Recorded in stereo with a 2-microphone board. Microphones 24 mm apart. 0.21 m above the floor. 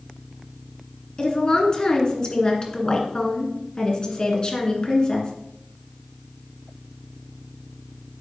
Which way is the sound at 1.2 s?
40° left (ahead or behind).